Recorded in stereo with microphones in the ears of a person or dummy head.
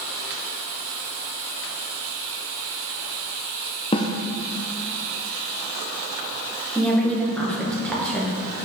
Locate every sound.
3.9 s a snare drum: 25° left (ahead or behind), 0.8 m
6.8 s a woman speaking: centre (ahead or behind), 2.0 m